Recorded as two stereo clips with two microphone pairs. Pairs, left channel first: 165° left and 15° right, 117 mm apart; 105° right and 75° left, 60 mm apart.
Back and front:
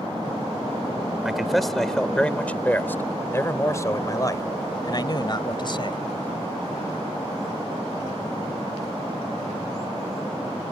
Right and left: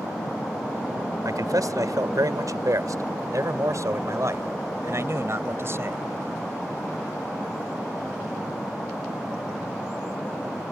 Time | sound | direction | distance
1.2 | a man speaking | 75° left | ?